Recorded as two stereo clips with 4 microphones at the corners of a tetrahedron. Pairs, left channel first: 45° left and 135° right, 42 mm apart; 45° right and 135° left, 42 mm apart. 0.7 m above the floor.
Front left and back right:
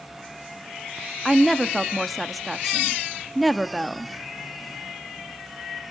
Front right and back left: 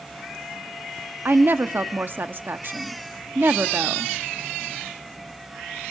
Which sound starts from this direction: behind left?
A woman speaking, at 1.2 s.